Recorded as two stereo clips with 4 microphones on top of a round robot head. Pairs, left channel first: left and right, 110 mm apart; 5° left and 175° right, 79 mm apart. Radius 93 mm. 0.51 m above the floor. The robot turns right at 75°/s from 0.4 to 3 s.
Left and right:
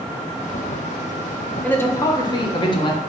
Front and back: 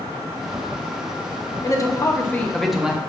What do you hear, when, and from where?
1.6 s a man speaking: 15° left, 0.9 m; by 3.0 s 115° left, 0.9 m